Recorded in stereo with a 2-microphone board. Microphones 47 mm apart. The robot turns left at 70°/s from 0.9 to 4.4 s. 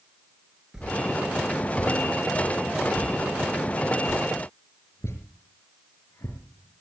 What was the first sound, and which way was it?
A whoosh, 15° right (ahead or behind).